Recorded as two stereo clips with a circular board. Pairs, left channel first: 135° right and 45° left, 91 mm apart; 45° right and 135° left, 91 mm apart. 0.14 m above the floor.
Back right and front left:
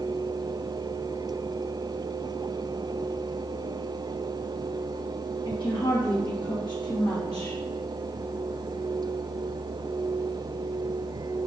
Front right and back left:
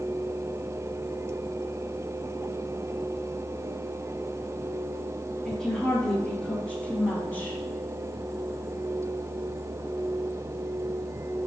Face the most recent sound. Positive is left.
turn(degrees=-105)